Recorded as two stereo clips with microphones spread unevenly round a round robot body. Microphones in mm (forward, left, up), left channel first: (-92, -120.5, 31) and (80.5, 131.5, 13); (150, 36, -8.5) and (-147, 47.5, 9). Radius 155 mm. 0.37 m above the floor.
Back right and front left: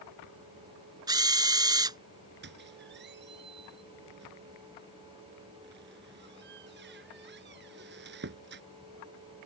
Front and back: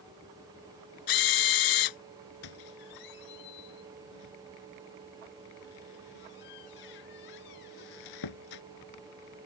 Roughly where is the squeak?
Ahead.